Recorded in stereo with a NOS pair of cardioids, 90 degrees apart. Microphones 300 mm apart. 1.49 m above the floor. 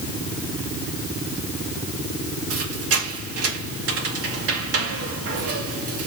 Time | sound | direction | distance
2.5 | a squeak | 55° right | 2 m